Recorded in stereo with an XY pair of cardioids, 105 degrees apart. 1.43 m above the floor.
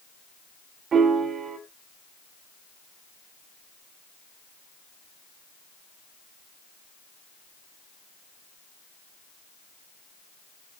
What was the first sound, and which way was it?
A piano, 60° right.